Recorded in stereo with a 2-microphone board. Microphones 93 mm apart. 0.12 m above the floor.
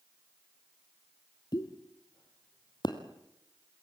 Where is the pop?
55° left (ahead or behind), 2 m.